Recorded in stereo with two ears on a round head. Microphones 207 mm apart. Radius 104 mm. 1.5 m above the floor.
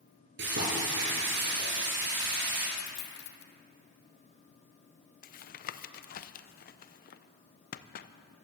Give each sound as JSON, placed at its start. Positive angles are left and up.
{"t": 0.4, "sound": "frying", "side_deg": -50, "distance_m": 5.5}
{"t": 2.8, "sound": "a dropped coin", "side_deg": 50, "distance_m": 1.4}
{"t": 5.2, "sound": "tapping", "side_deg": 40, "distance_m": 0.6}